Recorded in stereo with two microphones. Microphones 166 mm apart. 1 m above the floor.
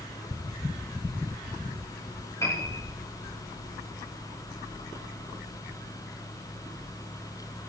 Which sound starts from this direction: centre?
A piano, at 2.4 s.